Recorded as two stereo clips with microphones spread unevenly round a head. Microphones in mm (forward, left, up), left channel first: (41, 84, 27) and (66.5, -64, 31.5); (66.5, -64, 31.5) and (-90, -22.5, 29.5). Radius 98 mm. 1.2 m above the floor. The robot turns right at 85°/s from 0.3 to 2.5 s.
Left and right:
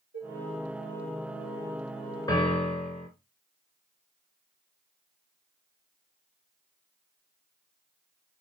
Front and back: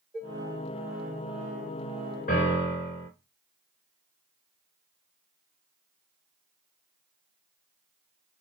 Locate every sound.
0.1 s dishes clattering: 100° right, 3 m; by 0.4 s 90° right, 3 m
2.3 s a piano: 35° left, 2.5 m; by 3.1 s 55° left, 2.5 m